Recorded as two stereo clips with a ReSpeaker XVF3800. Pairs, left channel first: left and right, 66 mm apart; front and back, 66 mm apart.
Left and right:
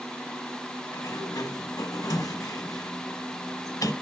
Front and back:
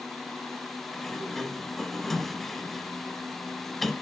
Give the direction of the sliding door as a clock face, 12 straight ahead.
9 o'clock.